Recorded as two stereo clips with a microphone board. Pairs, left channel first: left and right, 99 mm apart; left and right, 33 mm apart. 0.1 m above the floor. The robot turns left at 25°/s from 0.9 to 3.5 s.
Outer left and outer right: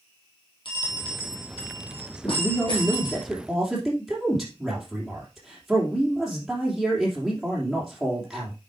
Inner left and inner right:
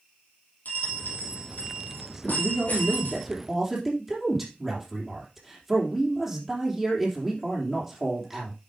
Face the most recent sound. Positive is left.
turn(degrees=0)